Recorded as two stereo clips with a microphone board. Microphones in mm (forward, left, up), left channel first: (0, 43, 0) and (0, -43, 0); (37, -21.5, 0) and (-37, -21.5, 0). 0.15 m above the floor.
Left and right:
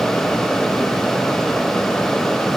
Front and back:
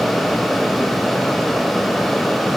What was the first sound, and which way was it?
Only background noise.